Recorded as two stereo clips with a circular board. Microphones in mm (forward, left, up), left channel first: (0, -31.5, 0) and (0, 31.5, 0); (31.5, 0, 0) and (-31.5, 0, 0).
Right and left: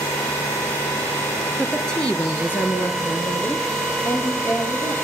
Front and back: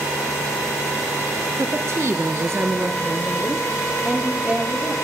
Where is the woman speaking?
175° right, 1.9 m; by 4.9 s 115° right, 4.5 m.